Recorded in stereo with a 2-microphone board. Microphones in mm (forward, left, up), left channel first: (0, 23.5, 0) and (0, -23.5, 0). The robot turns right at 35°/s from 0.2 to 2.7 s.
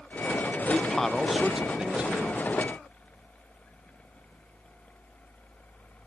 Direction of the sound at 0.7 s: 160° left.